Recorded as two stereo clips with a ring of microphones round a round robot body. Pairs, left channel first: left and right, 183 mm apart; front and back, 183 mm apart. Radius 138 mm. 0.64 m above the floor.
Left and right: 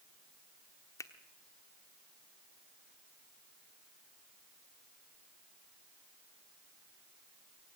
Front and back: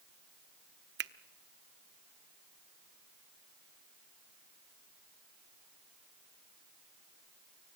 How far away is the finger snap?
About 1.0 m.